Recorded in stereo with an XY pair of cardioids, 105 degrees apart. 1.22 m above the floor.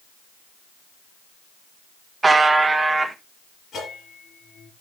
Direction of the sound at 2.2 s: 20° right.